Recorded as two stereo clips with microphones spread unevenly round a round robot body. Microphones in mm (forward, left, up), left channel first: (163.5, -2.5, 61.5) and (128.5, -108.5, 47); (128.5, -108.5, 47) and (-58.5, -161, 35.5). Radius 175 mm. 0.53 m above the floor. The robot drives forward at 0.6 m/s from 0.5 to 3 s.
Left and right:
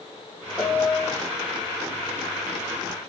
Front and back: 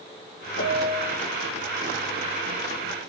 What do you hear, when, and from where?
0.6 s a piano: straight ahead, 3 m; by 1.2 s 5° right, 2.5 m